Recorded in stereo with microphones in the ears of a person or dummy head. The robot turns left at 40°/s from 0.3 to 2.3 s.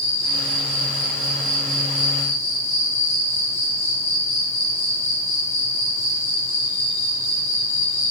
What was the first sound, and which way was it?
An insect, 145° left.